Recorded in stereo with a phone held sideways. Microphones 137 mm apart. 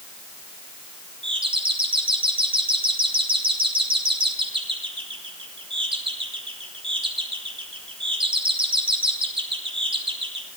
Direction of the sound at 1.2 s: 40° right (ahead or behind).